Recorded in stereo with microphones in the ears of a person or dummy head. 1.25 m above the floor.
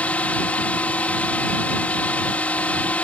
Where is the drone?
5° left (ahead or behind).